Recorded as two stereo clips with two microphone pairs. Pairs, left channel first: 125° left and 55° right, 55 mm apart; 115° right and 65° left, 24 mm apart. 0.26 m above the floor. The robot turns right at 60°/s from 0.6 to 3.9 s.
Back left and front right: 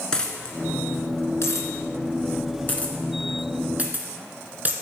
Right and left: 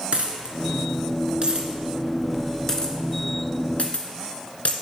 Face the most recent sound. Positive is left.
turn(degrees=-110)